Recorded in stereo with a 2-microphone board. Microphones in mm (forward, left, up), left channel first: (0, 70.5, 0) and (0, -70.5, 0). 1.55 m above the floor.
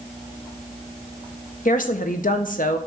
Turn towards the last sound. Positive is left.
turn(degrees=75)  # may be behind; listen again after turning